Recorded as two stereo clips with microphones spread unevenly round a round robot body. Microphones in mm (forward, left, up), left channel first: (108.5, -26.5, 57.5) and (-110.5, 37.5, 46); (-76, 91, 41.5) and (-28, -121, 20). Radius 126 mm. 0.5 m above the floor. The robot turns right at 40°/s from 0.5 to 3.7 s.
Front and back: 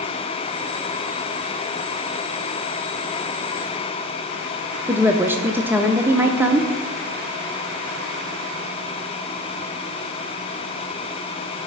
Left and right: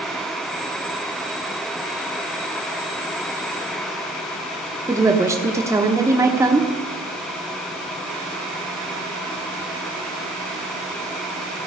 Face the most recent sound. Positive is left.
turn(degrees=-130)